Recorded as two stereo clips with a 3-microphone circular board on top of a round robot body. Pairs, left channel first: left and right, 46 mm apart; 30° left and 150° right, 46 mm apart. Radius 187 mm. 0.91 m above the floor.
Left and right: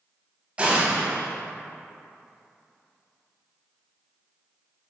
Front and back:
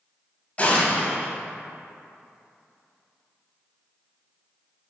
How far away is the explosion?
About 1.0 m.